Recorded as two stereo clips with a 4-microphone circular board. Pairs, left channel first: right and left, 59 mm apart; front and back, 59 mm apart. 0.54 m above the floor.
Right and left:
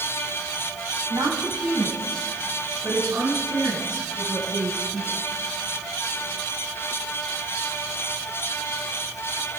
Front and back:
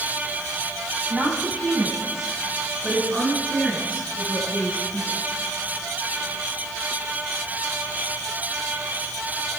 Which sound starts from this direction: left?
A woman speaking, at 1.1 s.